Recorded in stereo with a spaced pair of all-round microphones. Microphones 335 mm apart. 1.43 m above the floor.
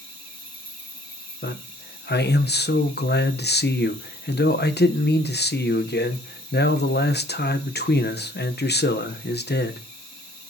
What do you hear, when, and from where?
0.0 s an insect: 75° left (ahead or behind), 3.5 m
1.4 s a man speaking: 30° left (ahead or behind), 0.9 m